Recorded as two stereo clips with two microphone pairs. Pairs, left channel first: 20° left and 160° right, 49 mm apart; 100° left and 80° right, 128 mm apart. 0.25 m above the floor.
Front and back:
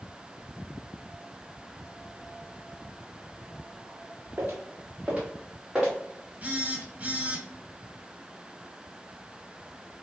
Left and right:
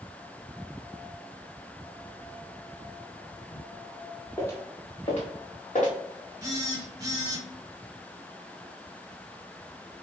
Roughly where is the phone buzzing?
Behind right.